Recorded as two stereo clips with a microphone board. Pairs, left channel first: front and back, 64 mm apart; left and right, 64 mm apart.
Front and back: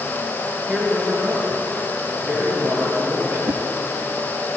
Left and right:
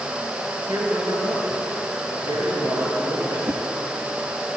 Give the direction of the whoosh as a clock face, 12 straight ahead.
5 o'clock.